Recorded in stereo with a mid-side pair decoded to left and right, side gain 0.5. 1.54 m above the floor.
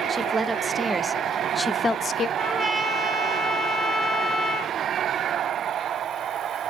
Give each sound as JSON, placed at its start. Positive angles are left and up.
{"t": 0.1, "sound": "a woman speaking", "azimuth_deg": -25, "distance_m": 1.6}
{"t": 2.4, "sound": "a trumpet", "azimuth_deg": -10, "distance_m": 4.0}